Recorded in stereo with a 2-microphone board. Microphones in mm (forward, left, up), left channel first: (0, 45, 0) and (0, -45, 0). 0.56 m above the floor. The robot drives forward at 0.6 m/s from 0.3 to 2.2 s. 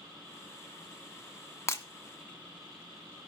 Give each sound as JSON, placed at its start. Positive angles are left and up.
{"t": 1.7, "sound": "breaking glass", "side_deg": 30, "distance_m": 1.3}